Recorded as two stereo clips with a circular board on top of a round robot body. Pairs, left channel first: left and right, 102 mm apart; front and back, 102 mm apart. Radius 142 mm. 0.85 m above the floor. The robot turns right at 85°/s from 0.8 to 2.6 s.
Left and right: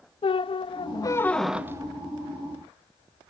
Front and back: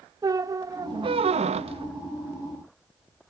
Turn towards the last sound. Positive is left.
turn(degrees=-85)